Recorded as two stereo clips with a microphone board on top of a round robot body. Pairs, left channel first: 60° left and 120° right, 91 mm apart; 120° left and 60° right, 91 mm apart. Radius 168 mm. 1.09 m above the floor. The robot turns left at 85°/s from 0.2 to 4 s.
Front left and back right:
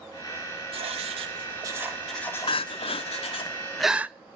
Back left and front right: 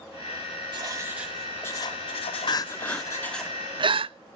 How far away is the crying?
About 0.5 m.